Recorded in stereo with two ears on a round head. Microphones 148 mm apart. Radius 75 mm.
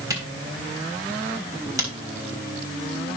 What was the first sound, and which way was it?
A camera shutter, 20° right (ahead or behind).